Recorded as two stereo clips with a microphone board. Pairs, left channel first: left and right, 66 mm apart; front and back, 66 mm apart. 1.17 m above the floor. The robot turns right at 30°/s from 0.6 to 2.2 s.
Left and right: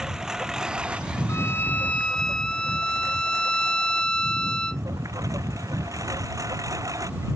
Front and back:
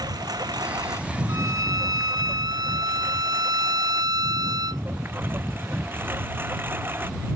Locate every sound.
0.0 s a lawn mower: 170° right; by 7.4 s 125° right
1.3 s a violin: 140° left; by 4.8 s 170° left